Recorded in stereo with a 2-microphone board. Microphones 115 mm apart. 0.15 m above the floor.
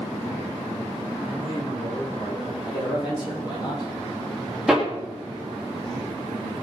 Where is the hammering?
5° right (ahead or behind), 3.5 m.